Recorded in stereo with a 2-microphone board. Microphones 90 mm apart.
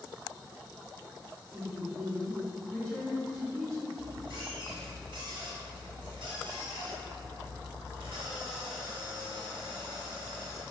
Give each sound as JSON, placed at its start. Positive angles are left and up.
{"t": 1.5, "sound": "a woman speaking", "side_deg": 10, "distance_m": 1.1}
{"t": 4.0, "sound": "a squeak", "side_deg": -80, "distance_m": 1.5}